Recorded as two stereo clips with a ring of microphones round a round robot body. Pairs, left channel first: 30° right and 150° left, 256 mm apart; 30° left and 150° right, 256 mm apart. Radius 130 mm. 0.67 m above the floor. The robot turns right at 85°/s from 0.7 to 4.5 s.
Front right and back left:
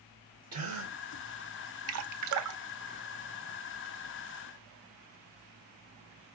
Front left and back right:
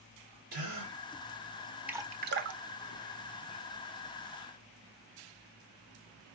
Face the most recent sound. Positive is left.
turn(degrees=-15)